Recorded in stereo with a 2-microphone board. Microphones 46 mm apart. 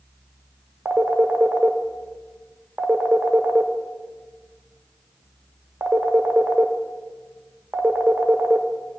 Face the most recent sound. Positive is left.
turn(degrees=-60)  # may be behind; listen again after turning